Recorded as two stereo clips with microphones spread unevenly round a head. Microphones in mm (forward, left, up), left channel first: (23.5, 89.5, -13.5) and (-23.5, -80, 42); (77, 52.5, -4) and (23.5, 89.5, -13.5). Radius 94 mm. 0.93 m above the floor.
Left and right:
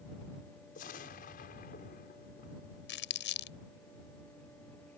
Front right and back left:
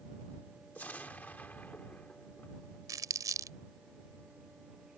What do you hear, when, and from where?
0.8 s an explosion: 30° left
2.9 s crumpling: 110° left